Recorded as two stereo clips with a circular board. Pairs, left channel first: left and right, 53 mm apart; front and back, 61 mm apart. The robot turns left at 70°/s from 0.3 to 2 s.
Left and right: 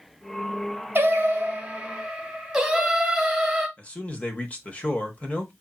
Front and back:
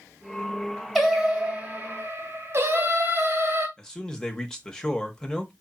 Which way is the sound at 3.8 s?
70° left.